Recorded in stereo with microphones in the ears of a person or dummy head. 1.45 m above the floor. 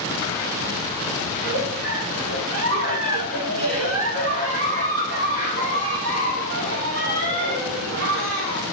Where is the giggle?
75° right (ahead or behind), 2.0 m.